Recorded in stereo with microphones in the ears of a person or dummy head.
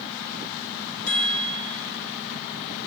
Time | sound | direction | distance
1.1 | a chime | 80° left | 2.5 m